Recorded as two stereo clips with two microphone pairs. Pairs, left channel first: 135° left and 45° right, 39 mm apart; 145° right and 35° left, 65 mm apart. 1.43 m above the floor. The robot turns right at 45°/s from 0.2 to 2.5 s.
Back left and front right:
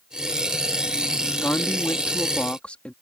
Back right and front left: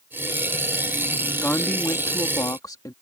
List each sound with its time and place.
1.4 s a woman speaking: 145° left; by 2.9 s 170° right